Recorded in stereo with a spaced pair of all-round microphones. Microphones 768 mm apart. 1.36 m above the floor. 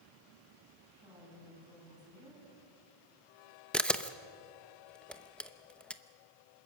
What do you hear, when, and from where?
0.9 s a woman speaking: 5° right (ahead or behind), 10 m
3.7 s a camera shutter: centre (ahead or behind), 0.7 m